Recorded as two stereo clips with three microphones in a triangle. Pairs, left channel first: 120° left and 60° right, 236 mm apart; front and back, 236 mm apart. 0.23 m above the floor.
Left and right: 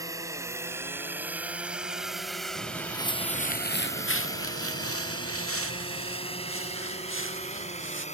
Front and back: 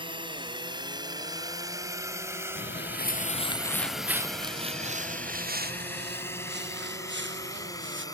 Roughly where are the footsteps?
Ahead left.